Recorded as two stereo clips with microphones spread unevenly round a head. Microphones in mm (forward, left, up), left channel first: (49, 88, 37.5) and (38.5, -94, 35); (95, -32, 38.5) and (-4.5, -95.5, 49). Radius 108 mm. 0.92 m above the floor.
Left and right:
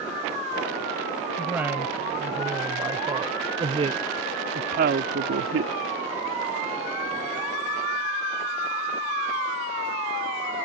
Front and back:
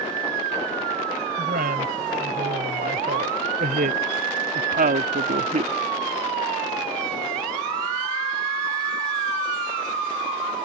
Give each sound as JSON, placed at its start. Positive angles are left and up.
{"t": 1.4, "sound": "a woman speaking", "azimuth_deg": -175}